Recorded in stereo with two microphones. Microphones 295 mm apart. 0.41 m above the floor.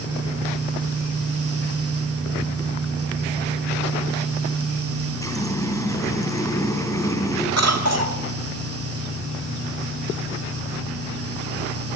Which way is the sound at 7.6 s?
55° right (ahead or behind).